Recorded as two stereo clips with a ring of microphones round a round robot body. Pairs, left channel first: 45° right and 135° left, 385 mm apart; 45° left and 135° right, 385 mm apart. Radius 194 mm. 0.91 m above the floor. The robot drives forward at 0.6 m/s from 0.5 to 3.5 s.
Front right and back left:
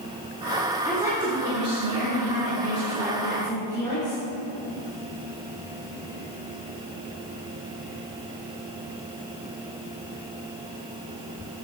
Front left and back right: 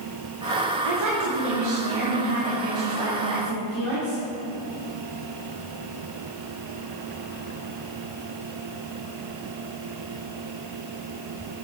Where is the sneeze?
No sneeze in this recording.